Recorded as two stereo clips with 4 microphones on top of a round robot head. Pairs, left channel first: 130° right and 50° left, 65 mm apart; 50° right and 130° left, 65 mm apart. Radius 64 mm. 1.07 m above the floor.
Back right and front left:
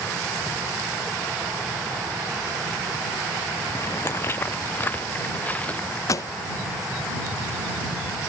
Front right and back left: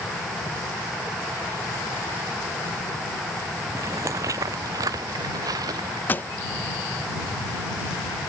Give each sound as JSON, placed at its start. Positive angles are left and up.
{"t": 3.7, "sound": "footsteps", "azimuth_deg": 180}
{"t": 6.1, "sound": "a pop", "azimuth_deg": -105}